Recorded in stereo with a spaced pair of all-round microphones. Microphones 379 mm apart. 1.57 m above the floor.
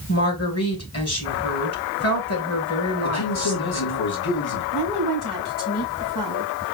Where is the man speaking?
80° left, 1.9 m.